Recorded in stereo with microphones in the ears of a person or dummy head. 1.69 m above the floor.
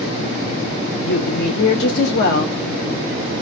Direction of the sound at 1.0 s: 65° left (ahead or behind).